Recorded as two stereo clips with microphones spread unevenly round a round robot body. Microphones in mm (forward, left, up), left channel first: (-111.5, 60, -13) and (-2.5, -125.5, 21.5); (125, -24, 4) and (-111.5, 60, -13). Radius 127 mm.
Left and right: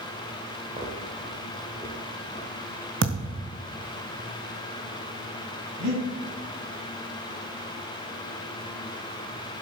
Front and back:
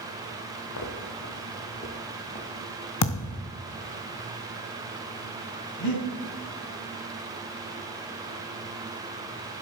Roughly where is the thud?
Ahead.